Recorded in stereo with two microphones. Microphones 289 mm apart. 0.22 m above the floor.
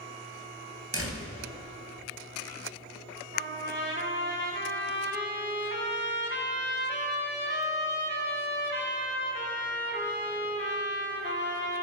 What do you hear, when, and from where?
0.9 s a door slam: 50° right (ahead or behind), 2.5 m
3.3 s a trumpet: 35° right (ahead or behind), 1.7 m